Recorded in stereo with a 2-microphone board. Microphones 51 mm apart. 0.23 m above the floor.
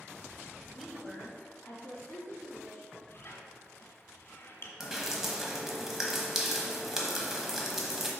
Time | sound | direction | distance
0.7 | a woman speaking | 10° right (ahead or behind) | 1.0 m
3.1 | a squeak | 45° left (ahead or behind) | 1.2 m
4.8 | dripping | 5° right (ahead or behind) | 1.0 m